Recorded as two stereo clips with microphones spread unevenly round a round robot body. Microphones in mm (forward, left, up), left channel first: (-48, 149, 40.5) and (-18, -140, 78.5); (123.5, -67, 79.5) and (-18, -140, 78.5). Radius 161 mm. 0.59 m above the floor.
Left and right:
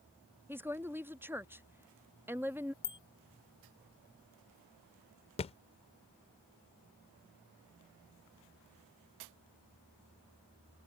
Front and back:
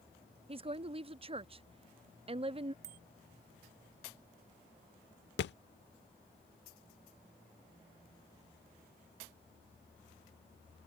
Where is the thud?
25° left.